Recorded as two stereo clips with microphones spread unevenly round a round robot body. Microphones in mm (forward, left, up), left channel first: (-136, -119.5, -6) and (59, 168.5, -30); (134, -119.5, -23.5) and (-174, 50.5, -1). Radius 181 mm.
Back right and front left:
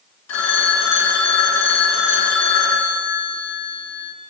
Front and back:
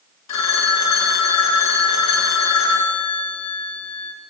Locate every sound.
0.3 s a phone ringing: 70° right, 3 m